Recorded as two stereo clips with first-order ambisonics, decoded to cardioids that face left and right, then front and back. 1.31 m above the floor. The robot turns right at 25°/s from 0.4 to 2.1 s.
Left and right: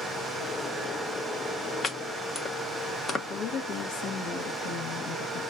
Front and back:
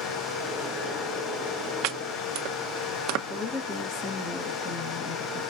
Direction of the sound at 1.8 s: 155° left.